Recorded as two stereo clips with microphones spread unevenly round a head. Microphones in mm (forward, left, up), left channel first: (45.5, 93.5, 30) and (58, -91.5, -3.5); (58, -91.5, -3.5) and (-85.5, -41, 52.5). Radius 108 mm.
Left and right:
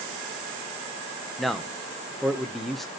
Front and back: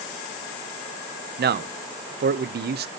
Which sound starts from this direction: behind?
A man speaking, at 1.4 s.